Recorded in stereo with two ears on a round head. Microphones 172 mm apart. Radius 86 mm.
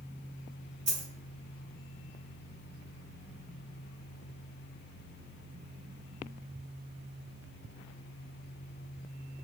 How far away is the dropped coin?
About 1.9 m.